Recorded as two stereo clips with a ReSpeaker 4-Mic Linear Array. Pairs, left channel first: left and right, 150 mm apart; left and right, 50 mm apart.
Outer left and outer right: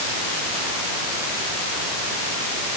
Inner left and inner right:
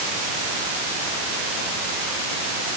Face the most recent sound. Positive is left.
No sound to turn to.